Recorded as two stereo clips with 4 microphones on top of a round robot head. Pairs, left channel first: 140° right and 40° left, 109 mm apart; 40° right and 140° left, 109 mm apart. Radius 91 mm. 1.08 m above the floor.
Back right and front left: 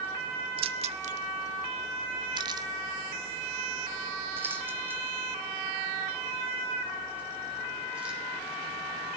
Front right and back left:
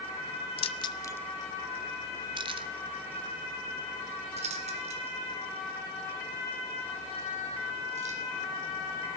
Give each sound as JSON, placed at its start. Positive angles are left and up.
{"t": 0.6, "sound": "keys jangling", "azimuth_deg": 0, "distance_m": 0.7}